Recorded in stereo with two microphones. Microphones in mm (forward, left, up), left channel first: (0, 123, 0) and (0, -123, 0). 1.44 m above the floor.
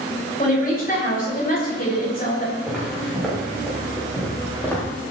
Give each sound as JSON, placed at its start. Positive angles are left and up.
{"t": 0.4, "sound": "a woman speaking", "side_deg": 35, "distance_m": 7.5}
{"t": 2.7, "sound": "footsteps", "side_deg": 0, "distance_m": 9.5}